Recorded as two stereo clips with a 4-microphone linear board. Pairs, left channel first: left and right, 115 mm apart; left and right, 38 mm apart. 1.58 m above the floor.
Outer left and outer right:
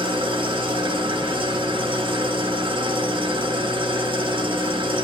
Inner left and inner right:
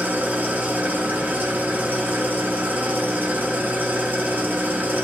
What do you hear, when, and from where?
0.0 s an engine running: 45° right (ahead or behind), 0.9 m